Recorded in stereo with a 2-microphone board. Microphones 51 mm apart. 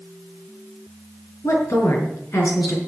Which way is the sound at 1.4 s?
65° left (ahead or behind).